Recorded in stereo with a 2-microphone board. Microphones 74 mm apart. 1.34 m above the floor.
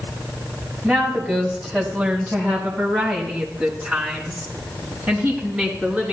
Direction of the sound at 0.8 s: 10° right (ahead or behind).